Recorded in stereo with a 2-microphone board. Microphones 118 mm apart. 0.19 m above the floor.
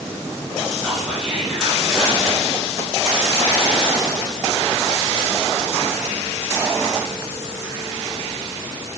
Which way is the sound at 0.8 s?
5° right (ahead or behind).